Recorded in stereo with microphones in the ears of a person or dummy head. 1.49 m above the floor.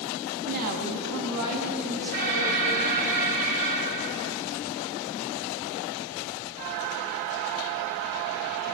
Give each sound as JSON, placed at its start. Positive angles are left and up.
{"t": 0.5, "sound": "a woman speaking", "side_deg": -40, "distance_m": 2.5}
{"t": 2.1, "sound": "an alarm", "side_deg": -45, "distance_m": 4.0}